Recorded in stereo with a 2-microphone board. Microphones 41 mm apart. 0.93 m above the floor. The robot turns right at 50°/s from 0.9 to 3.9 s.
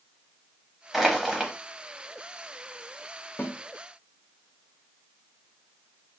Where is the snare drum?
55° left (ahead or behind), 0.8 m; by 3.6 s 50° left (ahead or behind), 0.8 m.